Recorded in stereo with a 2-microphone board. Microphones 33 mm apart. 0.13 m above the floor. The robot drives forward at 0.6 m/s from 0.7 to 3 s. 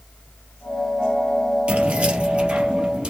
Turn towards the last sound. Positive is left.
turn(degrees=-30)  # may be behind; listen again after turning